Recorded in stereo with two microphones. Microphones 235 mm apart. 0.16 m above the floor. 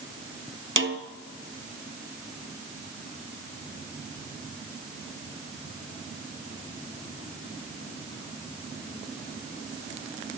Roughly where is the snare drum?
Right.